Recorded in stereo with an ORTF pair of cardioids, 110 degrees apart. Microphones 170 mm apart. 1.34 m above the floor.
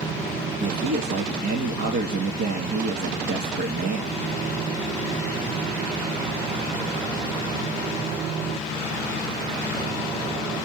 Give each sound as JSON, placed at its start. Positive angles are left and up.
{"t": 0.6, "sound": "a man speaking", "azimuth_deg": -60, "distance_m": 2.0}